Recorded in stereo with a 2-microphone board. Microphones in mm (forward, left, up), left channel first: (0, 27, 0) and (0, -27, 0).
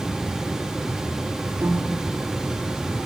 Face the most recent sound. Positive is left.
turn(degrees=-60)  # may be behind; listen again after turning